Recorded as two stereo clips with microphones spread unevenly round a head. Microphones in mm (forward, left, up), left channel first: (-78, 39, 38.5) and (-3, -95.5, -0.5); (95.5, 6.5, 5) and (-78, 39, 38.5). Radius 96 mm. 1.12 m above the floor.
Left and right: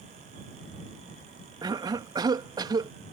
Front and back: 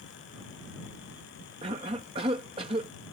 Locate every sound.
1.6 s a cough: 125° right